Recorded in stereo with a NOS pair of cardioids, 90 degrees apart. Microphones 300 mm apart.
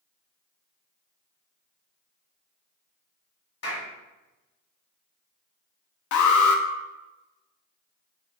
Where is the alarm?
65° left, 0.7 m.